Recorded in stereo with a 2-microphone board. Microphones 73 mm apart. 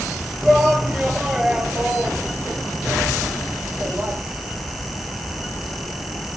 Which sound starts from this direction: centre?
A shout, at 0.4 s.